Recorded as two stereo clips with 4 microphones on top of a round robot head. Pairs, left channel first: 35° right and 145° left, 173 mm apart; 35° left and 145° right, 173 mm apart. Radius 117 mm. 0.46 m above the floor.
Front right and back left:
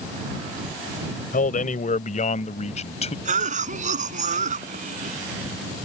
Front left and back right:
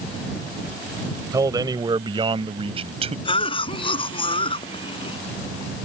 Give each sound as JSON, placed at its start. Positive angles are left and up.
{"t": 1.3, "sound": "a man speaking", "azimuth_deg": -75}
{"t": 3.2, "sound": "a cough", "azimuth_deg": 95}